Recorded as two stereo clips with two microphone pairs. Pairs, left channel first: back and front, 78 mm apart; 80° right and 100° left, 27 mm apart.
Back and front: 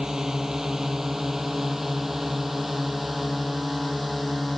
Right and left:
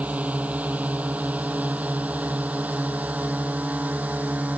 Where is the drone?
80° left; by 4.6 s 85° left.